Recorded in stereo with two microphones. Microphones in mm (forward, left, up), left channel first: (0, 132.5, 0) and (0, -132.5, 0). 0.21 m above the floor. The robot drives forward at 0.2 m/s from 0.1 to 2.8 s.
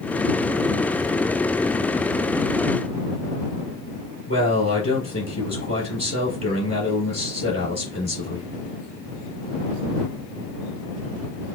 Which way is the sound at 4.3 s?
70° left (ahead or behind).